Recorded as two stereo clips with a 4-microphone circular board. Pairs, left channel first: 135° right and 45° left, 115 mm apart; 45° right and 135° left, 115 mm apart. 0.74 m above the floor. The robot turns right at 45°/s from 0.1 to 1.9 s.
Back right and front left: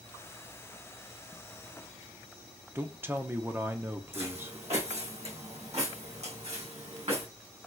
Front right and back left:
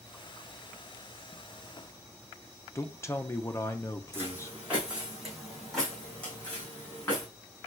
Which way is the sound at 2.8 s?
5° right.